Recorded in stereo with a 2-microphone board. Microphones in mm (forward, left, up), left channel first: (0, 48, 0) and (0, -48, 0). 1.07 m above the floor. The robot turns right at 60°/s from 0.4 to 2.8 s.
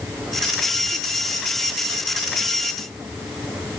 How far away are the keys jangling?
No keys jangling in this recording.